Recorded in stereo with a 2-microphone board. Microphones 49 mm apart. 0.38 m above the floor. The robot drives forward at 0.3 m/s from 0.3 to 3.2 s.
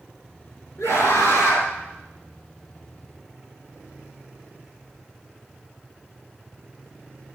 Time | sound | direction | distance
0.8 | a scream | 75° left (ahead or behind) | 5.5 m